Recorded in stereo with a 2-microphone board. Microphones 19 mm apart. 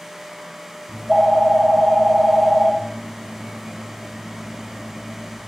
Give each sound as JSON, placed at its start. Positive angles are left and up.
{"t": 0.9, "sound": "a phone ringing", "side_deg": -30, "distance_m": 0.6}